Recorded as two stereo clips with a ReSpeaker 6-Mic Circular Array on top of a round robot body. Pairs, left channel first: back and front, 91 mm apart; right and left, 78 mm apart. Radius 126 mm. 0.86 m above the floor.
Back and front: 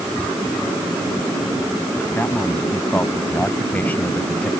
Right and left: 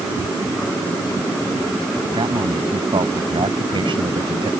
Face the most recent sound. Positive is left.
turn(degrees=105)